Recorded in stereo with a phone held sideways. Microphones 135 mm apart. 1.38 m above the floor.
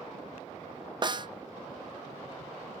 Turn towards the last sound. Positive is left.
turn(degrees=-35)  # may be behind; listen again after turning